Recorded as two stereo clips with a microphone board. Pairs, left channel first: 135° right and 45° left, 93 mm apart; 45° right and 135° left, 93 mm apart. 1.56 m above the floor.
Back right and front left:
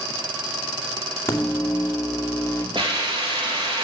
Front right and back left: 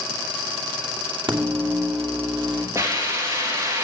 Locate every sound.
1.3 s a microwave: 160° left, 2.5 m
2.8 s a hiss: 75° left, 3 m